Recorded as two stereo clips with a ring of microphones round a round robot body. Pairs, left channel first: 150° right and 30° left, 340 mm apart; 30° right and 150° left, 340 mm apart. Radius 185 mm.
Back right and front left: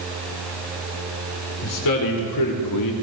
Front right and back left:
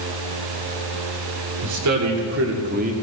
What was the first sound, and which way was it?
A man speaking, straight behind.